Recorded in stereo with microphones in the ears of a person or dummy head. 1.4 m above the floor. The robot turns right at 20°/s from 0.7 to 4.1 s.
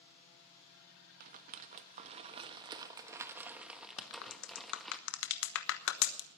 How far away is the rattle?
About 1.2 m.